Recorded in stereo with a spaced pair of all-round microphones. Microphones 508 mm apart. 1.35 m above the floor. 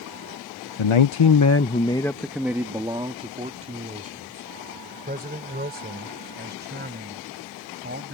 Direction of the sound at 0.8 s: 70° left (ahead or behind).